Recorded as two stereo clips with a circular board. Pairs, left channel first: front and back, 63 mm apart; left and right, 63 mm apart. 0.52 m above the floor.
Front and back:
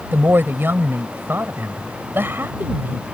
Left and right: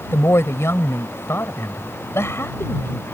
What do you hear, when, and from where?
0.1 s a woman speaking: 130° left